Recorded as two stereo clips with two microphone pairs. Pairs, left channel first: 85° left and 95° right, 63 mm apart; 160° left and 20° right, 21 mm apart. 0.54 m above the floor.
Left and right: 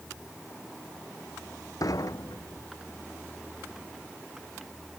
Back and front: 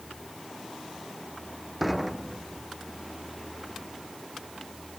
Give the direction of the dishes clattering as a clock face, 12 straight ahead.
10 o'clock.